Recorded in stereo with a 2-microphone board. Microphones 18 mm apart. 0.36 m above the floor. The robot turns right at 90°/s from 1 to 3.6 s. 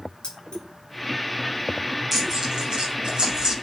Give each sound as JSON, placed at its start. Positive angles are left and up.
{"t": 0.2, "sound": "keys jangling", "side_deg": 70, "distance_m": 4.5}
{"t": 2.1, "sound": "tearing paper", "side_deg": -10, "distance_m": 3.0}